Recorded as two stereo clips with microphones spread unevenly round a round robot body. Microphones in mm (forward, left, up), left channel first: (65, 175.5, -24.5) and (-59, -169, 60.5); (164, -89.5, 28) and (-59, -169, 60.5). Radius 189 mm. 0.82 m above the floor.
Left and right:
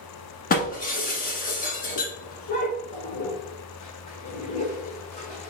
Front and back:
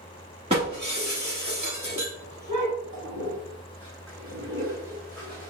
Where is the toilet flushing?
145° left, 1.5 m.